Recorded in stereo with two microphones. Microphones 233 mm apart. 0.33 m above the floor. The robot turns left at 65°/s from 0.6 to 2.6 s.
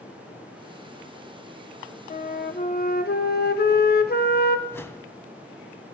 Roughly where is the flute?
Behind left.